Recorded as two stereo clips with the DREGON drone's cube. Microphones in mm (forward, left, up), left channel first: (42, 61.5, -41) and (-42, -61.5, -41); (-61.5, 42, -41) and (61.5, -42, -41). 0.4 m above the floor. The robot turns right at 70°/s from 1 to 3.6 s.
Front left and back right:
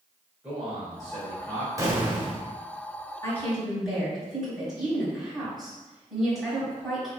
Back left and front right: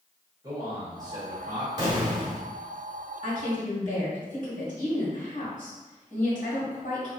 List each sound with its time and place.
0.4 s a man speaking: 40° right, 1.4 m; by 1.7 s 10° left, 1.4 m
1.8 s an explosion: 75° right, 1.1 m; by 2.5 s 25° right, 1.1 m
3.2 s a woman speaking: 120° left, 1.8 m; by 7.1 s 145° left, 1.8 m